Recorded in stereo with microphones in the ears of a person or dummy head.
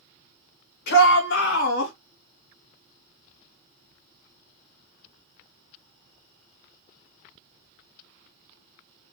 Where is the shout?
60° left (ahead or behind), 2.0 m; by 1.9 s 70° left (ahead or behind), 2.5 m.